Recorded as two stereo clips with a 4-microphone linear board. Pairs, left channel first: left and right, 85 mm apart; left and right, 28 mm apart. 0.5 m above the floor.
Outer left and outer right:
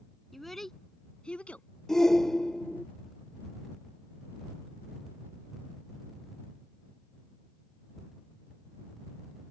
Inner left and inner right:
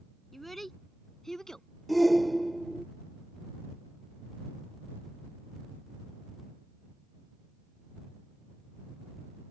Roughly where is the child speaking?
Centre.